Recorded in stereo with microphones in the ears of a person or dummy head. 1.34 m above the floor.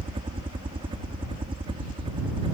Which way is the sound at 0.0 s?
25° right (ahead or behind).